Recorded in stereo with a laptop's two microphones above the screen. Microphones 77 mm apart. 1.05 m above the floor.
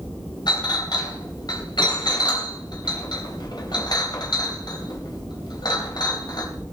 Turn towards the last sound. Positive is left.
turn(degrees=65)  # may be behind; listen again after turning